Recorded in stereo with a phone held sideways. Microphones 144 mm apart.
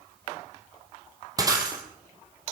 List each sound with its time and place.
1.4 s breaking glass: 25° right (ahead or behind), 3 m